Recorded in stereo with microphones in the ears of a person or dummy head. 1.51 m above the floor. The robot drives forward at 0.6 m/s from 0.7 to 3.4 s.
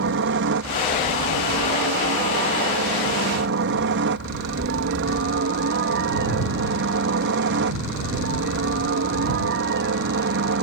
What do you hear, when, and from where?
0.0 s a helicopter: 60° right (ahead or behind); by 10.6 s 55° right (ahead or behind)